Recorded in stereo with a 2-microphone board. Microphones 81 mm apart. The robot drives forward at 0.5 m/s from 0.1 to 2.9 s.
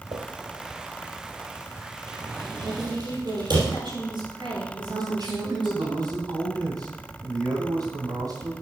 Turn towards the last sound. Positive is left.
turn(degrees=-55)  # may be behind; listen again after turning